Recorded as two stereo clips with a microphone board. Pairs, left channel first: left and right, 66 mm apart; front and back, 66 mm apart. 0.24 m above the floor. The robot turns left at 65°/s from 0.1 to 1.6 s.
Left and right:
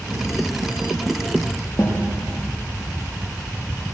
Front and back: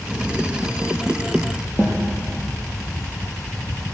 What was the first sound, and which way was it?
A snare drum, 120° left.